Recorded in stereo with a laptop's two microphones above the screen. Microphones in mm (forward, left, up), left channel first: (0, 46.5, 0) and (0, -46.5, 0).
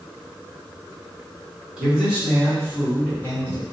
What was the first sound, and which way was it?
A man speaking, 15° right (ahead or behind).